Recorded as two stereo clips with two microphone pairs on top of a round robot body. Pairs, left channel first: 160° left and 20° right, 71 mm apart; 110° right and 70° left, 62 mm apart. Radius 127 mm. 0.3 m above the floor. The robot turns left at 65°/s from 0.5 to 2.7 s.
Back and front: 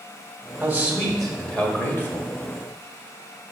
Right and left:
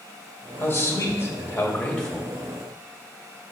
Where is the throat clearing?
I don't hear throat clearing.